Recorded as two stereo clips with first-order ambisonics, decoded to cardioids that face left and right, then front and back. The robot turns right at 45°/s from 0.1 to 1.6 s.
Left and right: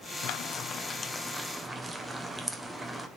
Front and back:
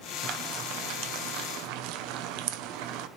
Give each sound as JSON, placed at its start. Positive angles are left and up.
{"t": 0.2, "sound": "frying", "azimuth_deg": 130, "distance_m": 1.0}